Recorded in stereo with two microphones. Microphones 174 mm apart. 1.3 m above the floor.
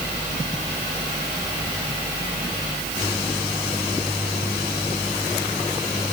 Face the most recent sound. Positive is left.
No sound to turn to.